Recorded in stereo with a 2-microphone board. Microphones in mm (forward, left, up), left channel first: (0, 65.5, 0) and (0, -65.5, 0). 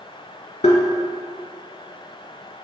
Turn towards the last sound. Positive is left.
turn(degrees=60)  # may be behind; listen again after turning